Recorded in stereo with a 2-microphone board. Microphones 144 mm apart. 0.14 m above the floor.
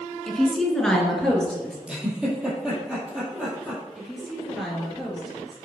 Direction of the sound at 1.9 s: 5° right (ahead or behind).